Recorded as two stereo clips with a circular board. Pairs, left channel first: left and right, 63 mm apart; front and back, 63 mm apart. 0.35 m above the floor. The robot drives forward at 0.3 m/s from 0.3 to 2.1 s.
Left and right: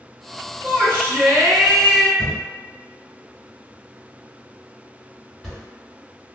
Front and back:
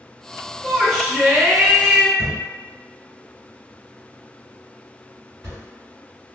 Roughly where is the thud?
Behind.